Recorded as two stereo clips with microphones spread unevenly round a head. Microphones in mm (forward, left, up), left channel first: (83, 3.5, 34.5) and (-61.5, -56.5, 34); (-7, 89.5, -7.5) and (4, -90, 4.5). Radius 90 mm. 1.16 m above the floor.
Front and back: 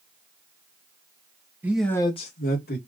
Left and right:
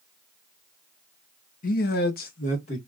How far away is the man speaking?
About 0.9 m.